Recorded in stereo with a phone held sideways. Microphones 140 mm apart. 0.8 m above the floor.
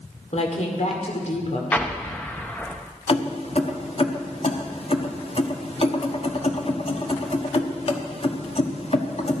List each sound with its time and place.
0.3 s a woman speaking: 55° left (ahead or behind), 2.5 m
1.7 s an explosion: 10° left (ahead or behind), 0.9 m
3.1 s keys jangling: 45° left (ahead or behind), 1.1 m